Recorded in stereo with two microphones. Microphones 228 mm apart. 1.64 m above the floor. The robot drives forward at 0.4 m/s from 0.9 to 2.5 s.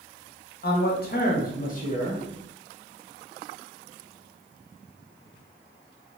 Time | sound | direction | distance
0.6 | a man speaking | 45° left (ahead or behind) | 0.7 m